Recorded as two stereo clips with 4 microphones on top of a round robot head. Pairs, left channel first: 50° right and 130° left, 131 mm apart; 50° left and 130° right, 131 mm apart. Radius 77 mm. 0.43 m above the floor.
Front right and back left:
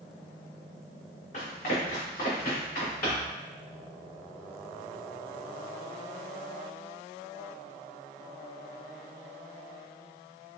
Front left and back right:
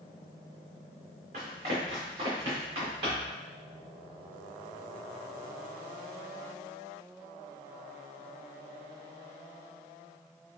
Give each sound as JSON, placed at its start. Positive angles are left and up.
{"t": 1.3, "sound": "running footsteps", "azimuth_deg": -90, "distance_m": 2.0}